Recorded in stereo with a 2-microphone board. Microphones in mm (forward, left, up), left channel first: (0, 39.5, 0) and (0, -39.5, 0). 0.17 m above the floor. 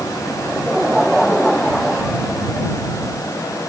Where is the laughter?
Centre (ahead or behind); by 2.7 s 10° left (ahead or behind).